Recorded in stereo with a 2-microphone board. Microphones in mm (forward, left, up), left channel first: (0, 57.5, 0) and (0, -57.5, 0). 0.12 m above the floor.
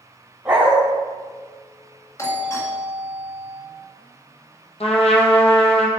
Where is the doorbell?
25° left (ahead or behind), 1.9 m.